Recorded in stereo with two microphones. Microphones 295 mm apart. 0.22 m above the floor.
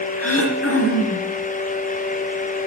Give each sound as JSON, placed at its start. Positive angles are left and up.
{"t": 0.2, "sound": "throat clearing", "side_deg": 50, "distance_m": 3.0}